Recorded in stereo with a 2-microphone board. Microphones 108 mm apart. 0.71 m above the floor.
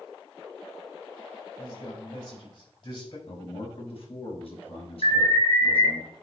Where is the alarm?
60° left (ahead or behind), 4.5 m.